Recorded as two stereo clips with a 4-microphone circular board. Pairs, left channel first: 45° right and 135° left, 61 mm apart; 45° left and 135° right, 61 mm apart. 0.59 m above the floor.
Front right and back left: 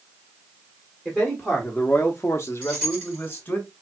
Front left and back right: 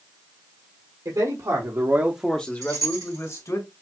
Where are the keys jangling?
150° right, 3 m.